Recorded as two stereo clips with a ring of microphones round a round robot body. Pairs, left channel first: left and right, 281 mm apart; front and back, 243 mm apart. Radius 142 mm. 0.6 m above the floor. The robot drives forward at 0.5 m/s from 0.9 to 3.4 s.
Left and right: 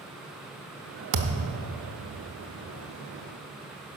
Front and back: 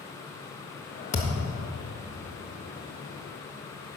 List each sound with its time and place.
1.1 s a thud: 65° right, 0.9 m; by 1.6 s 80° right, 0.9 m